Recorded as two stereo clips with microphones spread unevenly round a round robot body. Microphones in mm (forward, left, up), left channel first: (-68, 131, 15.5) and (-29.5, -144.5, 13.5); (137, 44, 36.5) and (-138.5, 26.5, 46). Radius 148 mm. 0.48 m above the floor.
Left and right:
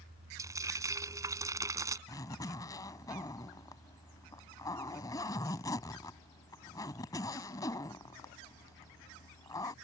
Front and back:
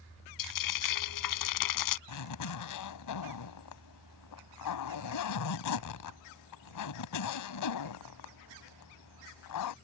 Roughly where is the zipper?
Ahead.